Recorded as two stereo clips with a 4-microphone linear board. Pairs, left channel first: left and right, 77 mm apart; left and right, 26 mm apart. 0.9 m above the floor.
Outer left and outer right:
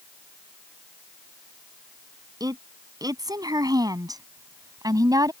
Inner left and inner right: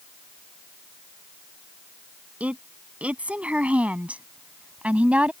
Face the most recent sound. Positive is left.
turn(degrees=-55)  # may be behind; listen again after turning